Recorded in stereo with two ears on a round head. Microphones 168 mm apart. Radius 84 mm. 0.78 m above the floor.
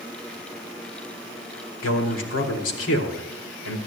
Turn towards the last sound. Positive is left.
turn(degrees=80)